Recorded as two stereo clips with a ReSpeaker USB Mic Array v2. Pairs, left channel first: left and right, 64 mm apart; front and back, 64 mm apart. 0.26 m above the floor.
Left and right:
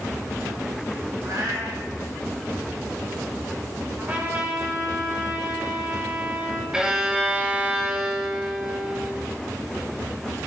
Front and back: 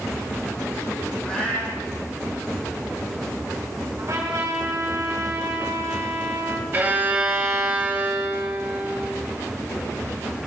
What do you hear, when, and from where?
1.2 s a cat meowing: 70° right, 4.5 m
4.0 s a trumpet: 150° right, 4 m
6.7 s a violin: 155° right, 1.6 m